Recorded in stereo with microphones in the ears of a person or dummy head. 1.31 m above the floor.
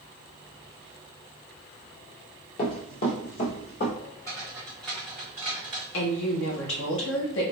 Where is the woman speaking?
70° left (ahead or behind), 1.3 m.